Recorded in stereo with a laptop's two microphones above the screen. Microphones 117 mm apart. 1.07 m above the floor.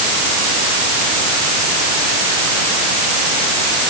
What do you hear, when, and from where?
Only background noise.